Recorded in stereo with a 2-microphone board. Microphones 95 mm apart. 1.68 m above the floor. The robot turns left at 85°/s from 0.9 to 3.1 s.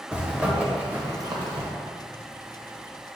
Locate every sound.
0.1 s a zipper: 15° right (ahead or behind), 1.2 m; by 1.7 s 70° right (ahead or behind), 1.2 m